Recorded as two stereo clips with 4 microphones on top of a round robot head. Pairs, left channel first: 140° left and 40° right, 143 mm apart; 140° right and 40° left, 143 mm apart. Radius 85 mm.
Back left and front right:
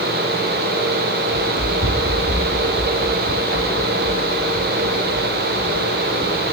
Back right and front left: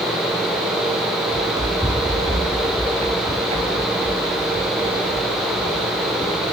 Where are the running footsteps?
30° right, 4 m; by 6.4 s 15° left, 4 m.